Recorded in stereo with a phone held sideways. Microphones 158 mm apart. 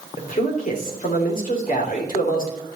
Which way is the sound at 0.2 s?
60° left (ahead or behind).